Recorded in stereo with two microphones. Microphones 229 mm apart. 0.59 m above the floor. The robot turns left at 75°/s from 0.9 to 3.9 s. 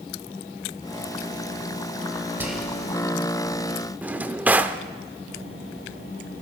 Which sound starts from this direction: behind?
Whispering, at 2.4 s.